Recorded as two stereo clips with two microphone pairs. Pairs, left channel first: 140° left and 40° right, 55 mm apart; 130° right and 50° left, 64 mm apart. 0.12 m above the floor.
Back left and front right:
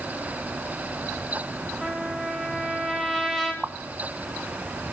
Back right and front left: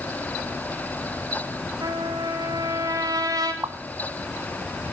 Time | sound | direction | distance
1.8 | a trumpet | 45° left | 2.5 m
3.6 | a pop | 25° left | 0.7 m